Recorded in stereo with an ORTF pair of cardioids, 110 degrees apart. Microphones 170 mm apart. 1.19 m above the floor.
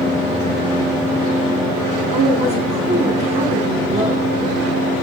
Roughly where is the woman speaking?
Ahead right.